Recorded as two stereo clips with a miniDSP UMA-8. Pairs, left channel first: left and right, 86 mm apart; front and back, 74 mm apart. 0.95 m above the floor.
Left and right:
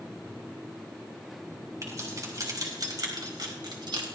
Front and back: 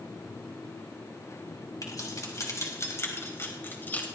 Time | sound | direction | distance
1.8 | keys jangling | 40° right | 5 m